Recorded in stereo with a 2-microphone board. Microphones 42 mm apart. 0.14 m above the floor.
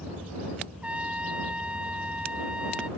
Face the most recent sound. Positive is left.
turn(degrees=-25)  # may be behind; listen again after turning